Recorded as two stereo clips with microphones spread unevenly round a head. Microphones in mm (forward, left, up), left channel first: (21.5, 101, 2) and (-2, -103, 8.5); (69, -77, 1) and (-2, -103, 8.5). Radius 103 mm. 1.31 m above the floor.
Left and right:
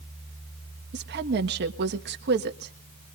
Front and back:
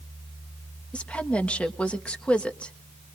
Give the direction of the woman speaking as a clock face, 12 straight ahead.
2 o'clock.